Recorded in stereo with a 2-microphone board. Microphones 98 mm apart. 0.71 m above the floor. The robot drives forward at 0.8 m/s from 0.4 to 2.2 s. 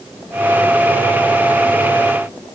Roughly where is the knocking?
I don't hear knocking.